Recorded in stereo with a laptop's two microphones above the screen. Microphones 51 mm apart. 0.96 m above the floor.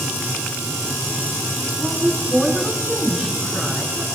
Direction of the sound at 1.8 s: 10° left (ahead or behind).